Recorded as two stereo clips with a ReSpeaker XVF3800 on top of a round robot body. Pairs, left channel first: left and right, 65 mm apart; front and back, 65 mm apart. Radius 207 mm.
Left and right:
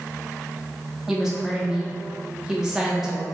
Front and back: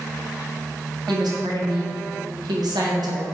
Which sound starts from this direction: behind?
A woman speaking, at 1.1 s.